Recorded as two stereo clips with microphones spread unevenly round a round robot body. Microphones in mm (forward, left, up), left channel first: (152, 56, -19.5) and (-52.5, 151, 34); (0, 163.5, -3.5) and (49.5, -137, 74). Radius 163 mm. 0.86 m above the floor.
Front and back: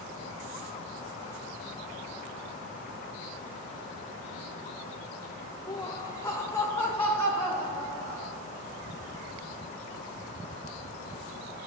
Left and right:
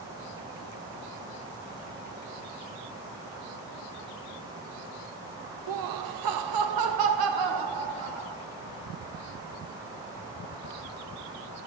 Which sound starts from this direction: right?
Laughter, at 5.7 s.